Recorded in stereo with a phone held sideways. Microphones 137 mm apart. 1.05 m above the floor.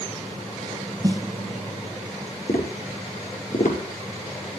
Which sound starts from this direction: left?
Tapping, at 2.5 s.